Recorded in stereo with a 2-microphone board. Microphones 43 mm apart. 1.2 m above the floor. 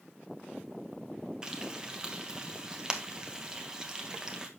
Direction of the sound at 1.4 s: 15° right (ahead or behind).